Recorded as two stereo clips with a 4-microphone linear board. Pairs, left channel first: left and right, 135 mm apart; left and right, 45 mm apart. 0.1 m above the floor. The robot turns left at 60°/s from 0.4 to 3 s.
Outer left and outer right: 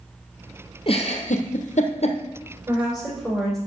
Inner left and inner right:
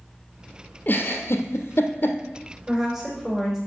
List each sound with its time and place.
0.9 s a giggle: 45° left (ahead or behind), 1.3 m; by 2.2 s 50° left (ahead or behind), 1.3 m
2.7 s a woman speaking: 20° right (ahead or behind), 4.5 m; by 3.6 s centre (ahead or behind), 4.5 m